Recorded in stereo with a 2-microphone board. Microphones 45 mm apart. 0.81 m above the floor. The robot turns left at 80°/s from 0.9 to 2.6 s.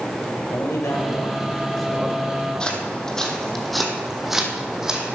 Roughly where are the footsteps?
Centre.